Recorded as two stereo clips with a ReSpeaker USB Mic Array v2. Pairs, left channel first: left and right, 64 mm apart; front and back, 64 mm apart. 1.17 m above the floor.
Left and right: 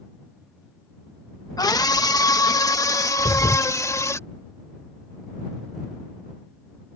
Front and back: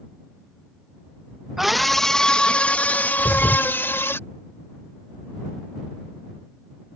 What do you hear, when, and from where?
1.6 s a scream: 95° left; by 4.2 s 50° left
3.2 s a thud: 85° left